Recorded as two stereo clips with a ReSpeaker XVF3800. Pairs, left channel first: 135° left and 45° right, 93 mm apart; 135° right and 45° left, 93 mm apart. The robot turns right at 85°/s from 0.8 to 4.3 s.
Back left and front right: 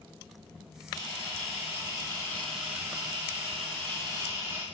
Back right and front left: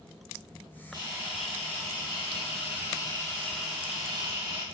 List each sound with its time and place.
0.9 s a camera shutter: 85° left, 3.5 m; by 4.6 s 15° left, 3.5 m